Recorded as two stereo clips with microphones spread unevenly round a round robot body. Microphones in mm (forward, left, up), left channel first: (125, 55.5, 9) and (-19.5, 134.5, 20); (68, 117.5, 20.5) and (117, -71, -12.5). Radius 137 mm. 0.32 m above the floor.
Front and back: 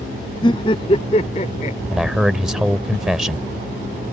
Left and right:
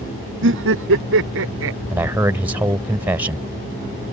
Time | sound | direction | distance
0.4 | laughter | 100° right | ?
1.9 | a man speaking | 120° right | ?